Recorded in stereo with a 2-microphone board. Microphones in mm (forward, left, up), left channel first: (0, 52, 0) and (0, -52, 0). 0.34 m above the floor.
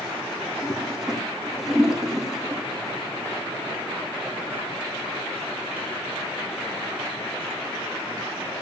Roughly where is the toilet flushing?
Centre.